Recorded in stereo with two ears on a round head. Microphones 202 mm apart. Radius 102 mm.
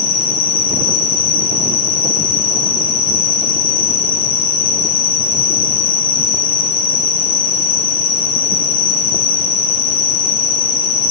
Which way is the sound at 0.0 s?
60° left (ahead or behind).